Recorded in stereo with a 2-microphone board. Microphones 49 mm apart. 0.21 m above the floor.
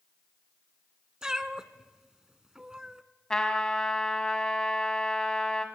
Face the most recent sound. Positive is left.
turn(degrees=15)  # may be behind; listen again after turning